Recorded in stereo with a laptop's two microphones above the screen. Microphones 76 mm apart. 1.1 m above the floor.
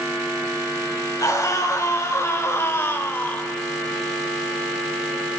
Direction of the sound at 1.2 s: 45° left (ahead or behind).